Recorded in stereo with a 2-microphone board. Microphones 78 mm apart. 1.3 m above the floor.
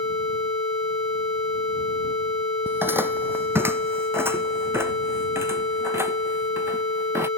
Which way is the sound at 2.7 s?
25° right (ahead or behind).